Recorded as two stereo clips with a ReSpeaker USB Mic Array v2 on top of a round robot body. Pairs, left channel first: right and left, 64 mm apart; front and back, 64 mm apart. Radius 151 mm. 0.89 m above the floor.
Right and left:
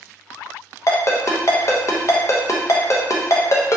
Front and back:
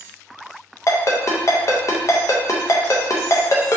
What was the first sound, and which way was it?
A ringtone, 45° right.